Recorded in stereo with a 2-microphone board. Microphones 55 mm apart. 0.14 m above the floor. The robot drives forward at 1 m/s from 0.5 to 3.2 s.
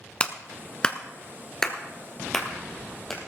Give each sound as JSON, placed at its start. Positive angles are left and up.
{"t": 0.2, "sound": "a clap", "side_deg": 20, "distance_m": 0.9}